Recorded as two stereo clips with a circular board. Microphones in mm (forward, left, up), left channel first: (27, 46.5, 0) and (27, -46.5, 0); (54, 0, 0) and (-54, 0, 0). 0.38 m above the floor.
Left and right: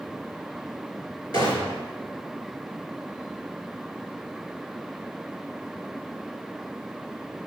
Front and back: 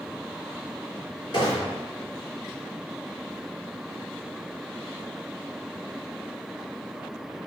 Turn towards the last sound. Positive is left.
turn(degrees=50)